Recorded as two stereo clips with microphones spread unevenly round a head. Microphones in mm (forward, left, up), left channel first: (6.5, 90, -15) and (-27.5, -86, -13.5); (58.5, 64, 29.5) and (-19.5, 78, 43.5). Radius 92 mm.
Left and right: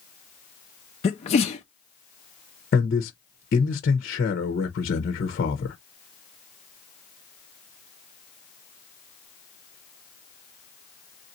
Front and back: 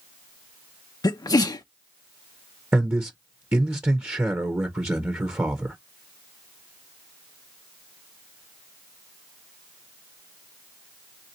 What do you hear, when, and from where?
1.0 s a sneeze: 25° left, 0.5 m
2.7 s a man speaking: 100° left, 0.9 m